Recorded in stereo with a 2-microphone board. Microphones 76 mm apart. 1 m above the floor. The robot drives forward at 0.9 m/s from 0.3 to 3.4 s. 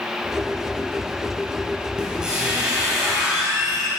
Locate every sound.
2.0 s a squeak: 10° right (ahead or behind), 4.5 m